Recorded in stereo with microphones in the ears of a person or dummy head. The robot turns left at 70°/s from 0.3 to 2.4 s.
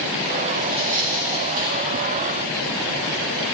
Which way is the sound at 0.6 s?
20° right (ahead or behind).